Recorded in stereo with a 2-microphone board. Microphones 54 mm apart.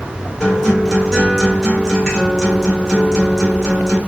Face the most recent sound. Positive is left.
turn(degrees=5)  # may be behind; listen again after turning